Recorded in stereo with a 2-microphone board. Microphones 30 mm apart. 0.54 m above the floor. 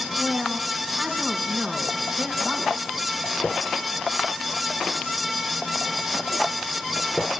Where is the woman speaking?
15° right (ahead or behind), 3.5 m.